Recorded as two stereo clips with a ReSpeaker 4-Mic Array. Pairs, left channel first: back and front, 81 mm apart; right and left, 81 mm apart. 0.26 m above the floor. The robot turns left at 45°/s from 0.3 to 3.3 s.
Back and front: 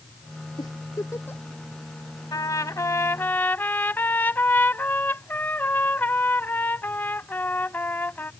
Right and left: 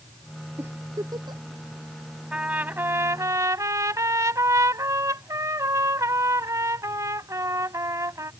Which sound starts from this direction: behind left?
A giggle, at 0.6 s.